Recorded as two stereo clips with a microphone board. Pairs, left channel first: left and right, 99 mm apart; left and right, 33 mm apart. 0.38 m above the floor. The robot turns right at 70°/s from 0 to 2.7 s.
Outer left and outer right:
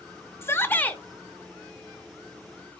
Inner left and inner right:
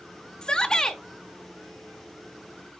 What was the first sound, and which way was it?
A shout, 25° left (ahead or behind).